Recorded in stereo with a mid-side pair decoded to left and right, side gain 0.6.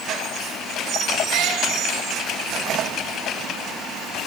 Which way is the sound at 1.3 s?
65° right.